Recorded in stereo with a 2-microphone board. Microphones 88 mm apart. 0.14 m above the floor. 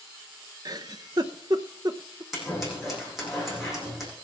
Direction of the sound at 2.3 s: Centre (ahead or behind).